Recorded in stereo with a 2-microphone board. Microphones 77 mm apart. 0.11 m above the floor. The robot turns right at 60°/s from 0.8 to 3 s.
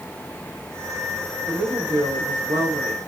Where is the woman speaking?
160° right, 6 m; by 3.1 s 65° right, 6 m.